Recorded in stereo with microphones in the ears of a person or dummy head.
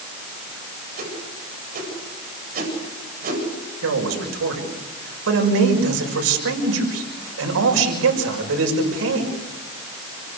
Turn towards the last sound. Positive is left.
turn(degrees=-85)